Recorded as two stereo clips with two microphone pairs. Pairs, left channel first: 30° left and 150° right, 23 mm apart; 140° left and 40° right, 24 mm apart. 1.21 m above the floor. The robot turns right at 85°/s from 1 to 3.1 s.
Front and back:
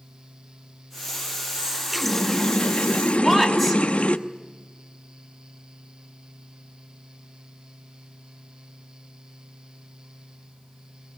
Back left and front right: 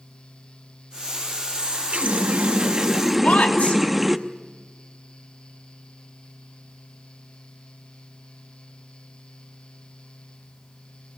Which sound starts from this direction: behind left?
A woman speaking, at 3.2 s.